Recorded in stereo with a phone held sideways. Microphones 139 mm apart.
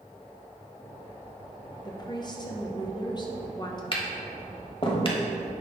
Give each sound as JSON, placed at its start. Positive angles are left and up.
{"t": 1.9, "sound": "a woman speaking", "side_deg": 30, "distance_m": 0.9}
{"t": 3.9, "sound": "tapping", "side_deg": 40, "distance_m": 1.1}